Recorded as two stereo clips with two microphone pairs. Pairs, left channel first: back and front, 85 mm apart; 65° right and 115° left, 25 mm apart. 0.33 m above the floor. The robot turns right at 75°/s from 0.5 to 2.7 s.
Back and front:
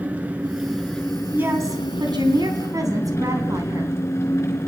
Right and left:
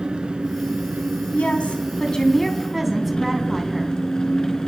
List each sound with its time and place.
0.0 s an engine running: 70° left, 3 m; by 4.7 s 125° right, 3 m
1.3 s a woman speaking: 70° right, 3 m; by 4.0 s 35° left, 3 m